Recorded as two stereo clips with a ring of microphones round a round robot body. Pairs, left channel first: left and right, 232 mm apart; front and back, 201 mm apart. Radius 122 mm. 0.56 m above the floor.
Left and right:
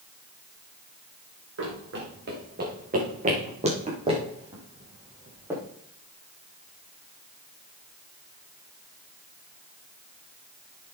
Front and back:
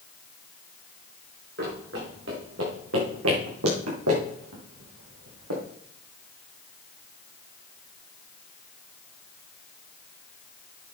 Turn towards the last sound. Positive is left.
turn(degrees=-170)